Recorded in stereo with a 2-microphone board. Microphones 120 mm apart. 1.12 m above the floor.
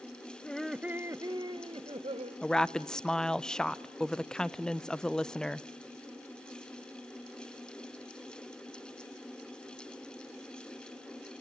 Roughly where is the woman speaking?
Centre.